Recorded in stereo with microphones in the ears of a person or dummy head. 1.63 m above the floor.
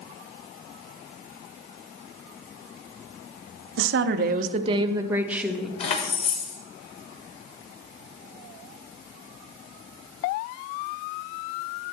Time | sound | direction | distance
3.8 | a woman speaking | 80° right | 0.6 m
5.8 | keys jangling | 40° left (ahead or behind) | 1.2 m